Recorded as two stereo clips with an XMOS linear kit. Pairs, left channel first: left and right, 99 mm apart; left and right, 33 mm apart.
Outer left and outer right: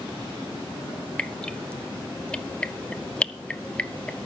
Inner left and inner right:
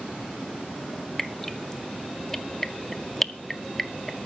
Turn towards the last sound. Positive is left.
turn(degrees=10)  # may be behind; listen again after turning